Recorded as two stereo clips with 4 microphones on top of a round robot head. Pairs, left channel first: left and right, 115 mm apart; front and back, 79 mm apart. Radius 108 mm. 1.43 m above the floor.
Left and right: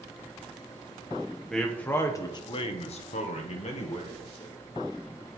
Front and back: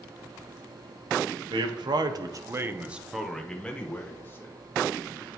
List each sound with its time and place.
1.5 s a man speaking: 175° left, 1.5 m; by 4.5 s 65° left, 2.5 m